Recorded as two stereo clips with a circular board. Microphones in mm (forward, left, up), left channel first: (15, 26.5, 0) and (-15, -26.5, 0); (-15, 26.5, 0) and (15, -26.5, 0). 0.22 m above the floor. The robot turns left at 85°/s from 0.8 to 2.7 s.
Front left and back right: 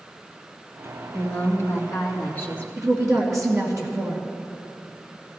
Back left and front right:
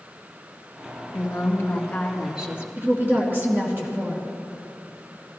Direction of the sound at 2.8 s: 110° right.